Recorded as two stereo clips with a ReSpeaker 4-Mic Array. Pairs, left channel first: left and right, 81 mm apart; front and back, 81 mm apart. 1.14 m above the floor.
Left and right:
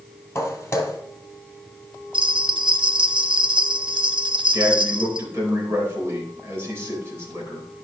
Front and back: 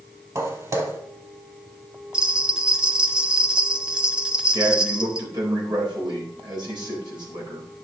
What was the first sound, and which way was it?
Footsteps, 140° left.